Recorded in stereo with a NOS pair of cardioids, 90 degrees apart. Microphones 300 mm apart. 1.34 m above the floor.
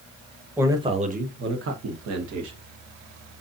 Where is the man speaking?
5° right, 1.2 m; by 2.6 s 65° right, 1.6 m.